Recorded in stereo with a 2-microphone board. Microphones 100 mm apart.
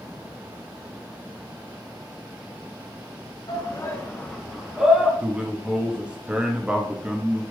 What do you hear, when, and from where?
3.5 s a shout: 45° left (ahead or behind), 1.0 m; by 5.1 s 15° right (ahead or behind), 1.2 m
5.2 s a man speaking: 10° right (ahead or behind), 0.7 m